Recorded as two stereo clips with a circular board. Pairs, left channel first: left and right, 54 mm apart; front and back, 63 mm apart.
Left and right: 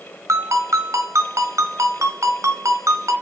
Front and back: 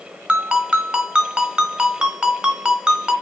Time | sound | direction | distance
0.3 | a ringtone | 110° right | 2 m